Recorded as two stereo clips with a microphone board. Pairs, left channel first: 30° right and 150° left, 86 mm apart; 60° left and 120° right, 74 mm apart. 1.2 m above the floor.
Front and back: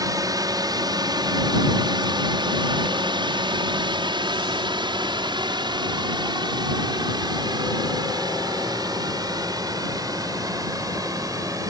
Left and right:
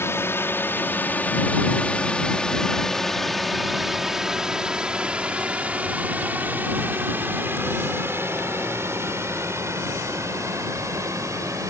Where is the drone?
110° left; by 11.7 s 165° right.